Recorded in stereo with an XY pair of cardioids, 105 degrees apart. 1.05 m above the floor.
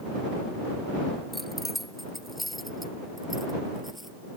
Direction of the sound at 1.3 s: 10° left.